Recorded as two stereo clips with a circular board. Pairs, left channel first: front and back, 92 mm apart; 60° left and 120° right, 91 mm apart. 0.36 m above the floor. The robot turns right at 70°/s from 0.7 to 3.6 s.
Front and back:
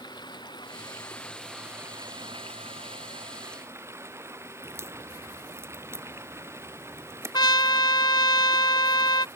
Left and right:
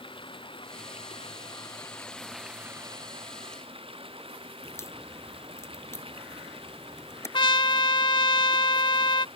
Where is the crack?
120° left.